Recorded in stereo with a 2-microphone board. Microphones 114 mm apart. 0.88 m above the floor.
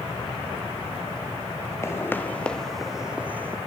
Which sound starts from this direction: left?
Footsteps, at 1.8 s.